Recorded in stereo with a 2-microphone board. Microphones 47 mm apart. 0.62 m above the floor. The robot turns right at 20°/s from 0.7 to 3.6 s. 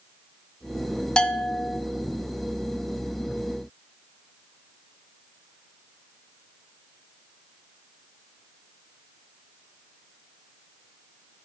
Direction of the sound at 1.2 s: 20° left (ahead or behind).